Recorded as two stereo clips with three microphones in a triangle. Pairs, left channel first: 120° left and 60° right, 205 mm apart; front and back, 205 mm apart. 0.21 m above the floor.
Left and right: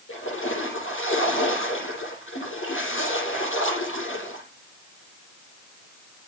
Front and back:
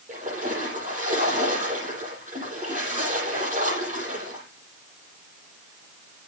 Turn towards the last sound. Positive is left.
turn(degrees=125)